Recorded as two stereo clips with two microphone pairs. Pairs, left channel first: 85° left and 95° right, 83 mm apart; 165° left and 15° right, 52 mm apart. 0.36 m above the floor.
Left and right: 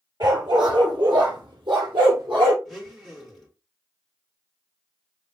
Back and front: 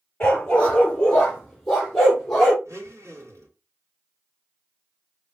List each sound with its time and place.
0.2 s a dog barking: 130° right, 1.9 m; by 2.5 s 110° right, 3.5 m
2.6 s a blender: 5° right, 2.5 m